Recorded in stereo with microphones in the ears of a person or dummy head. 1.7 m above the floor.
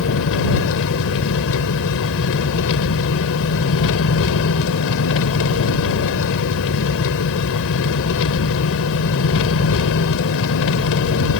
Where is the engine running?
75° left (ahead or behind).